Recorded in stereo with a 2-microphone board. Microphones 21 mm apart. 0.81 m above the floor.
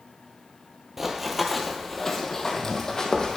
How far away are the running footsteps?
About 0.9 m.